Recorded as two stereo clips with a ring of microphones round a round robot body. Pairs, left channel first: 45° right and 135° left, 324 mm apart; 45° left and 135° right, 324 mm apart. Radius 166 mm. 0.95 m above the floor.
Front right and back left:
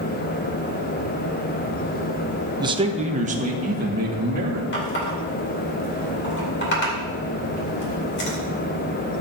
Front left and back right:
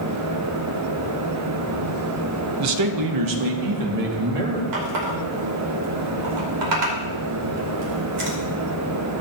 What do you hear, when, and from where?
2.6 s a man speaking: 150° right, 0.7 m; by 4.6 s 160° right, 2.5 m
4.7 s a running tap: 105° right, 2.5 m